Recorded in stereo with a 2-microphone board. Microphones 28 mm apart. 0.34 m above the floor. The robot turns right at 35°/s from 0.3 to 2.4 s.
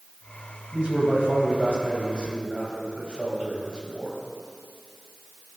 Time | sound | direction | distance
0.7 | a man speaking | 100° right | 1.9 m